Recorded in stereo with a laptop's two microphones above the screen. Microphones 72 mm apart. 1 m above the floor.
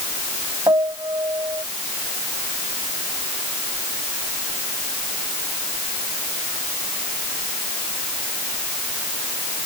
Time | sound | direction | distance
0.7 | a piano | 85° right | ?